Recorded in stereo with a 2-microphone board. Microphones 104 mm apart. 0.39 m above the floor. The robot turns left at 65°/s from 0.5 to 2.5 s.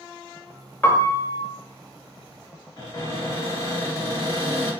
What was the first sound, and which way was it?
A piano, 155° left.